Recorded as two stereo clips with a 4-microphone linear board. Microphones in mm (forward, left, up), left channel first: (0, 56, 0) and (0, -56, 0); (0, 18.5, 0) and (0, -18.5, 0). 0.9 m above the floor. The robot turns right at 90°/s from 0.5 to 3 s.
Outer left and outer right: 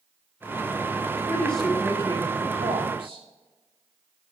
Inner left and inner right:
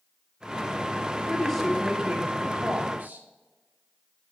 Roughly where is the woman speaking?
Behind left.